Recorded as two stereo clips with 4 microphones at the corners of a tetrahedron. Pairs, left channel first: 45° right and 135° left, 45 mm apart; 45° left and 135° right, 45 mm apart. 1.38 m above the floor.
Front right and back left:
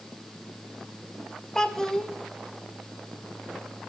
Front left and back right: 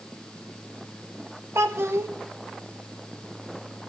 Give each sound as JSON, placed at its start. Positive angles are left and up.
{"t": 1.6, "sound": "a child speaking", "azimuth_deg": -120, "distance_m": 1.5}